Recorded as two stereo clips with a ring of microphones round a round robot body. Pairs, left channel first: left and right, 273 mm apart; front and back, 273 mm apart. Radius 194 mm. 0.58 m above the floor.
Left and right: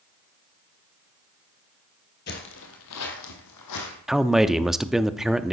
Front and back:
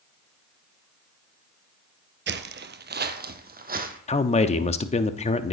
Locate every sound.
2.3 s footsteps: 140° left, 0.8 m; by 4.0 s 120° left, 1.7 m
4.1 s a man speaking: 5° right, 0.6 m